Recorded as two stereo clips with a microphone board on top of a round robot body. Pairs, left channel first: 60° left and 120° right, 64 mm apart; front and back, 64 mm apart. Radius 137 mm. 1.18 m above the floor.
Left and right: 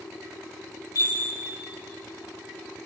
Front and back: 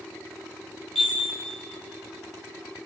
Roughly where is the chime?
Left.